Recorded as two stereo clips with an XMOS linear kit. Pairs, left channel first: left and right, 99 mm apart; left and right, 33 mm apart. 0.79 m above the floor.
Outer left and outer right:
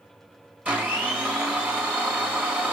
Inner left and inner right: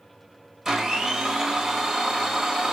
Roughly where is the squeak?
I don't hear a squeak.